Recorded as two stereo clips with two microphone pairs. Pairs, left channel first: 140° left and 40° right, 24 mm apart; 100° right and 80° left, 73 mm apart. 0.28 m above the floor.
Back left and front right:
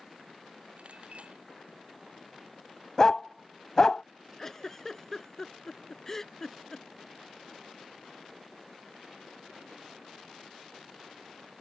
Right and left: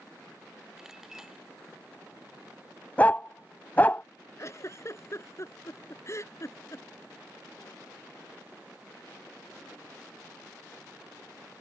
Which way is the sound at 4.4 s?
145° right.